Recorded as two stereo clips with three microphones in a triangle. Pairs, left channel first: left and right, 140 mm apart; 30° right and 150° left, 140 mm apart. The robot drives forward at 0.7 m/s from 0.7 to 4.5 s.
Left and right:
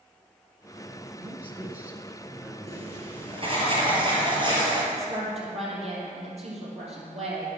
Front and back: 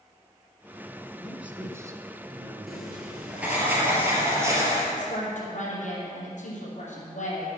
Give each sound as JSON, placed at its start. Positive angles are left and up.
{"t": 1.2, "sound": "a man speaking", "azimuth_deg": -125, "distance_m": 1.2}
{"t": 2.7, "sound": "writing", "azimuth_deg": -120, "distance_m": 2.5}
{"t": 4.9, "sound": "a woman speaking", "azimuth_deg": -50, "distance_m": 4.5}